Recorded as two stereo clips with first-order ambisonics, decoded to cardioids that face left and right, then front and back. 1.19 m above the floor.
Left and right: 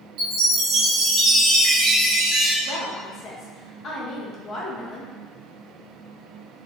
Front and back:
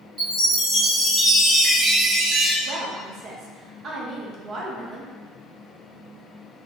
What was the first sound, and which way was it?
A chime, 125° right.